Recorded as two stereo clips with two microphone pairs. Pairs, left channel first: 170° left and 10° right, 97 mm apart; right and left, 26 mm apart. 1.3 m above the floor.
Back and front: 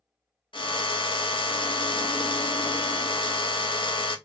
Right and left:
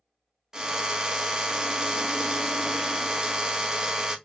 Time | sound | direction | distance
0.5 | a drill | 145° left | 0.9 m